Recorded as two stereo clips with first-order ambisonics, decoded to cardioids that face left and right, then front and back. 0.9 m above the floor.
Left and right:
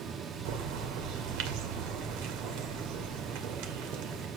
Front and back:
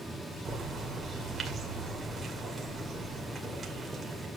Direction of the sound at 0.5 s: 105° right.